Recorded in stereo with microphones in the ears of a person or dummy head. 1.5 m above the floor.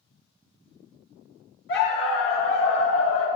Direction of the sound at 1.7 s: 60° left (ahead or behind).